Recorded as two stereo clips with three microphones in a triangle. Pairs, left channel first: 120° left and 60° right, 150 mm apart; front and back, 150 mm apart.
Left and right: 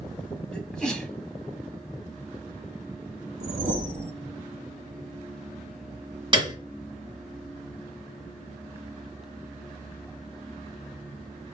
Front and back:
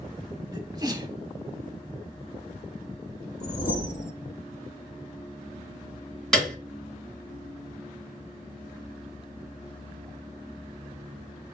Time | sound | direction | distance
0.5 | a sneeze | 160° right | 1.3 m
3.4 | a whoosh | 30° right | 0.9 m
6.3 | a piano | 85° right | 1.5 m